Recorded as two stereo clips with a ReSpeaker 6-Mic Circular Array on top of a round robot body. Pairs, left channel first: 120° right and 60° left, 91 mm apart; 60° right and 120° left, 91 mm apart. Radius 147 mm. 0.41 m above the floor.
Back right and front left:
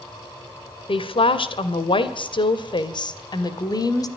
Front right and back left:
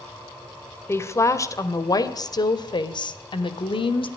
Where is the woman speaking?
120° right, 2.5 m; by 4.1 s 75° right, 2.5 m.